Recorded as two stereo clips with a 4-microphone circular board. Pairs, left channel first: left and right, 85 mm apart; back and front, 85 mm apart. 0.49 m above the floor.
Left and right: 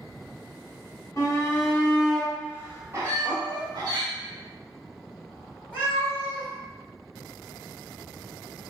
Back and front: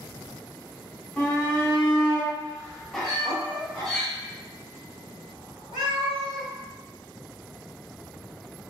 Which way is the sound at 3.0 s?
10° left.